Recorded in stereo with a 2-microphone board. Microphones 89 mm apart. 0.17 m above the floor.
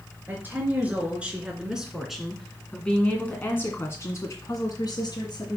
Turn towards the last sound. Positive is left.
turn(degrees=50)  # may be behind; listen again after turning